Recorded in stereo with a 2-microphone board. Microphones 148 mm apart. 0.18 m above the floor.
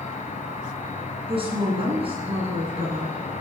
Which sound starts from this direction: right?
A woman speaking, at 1.3 s.